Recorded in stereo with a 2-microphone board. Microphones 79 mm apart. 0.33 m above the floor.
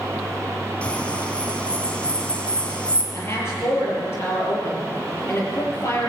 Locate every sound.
0.8 s a bird: 15° left (ahead or behind), 2.5 m
3.1 s a woman speaking: 35° left (ahead or behind), 7 m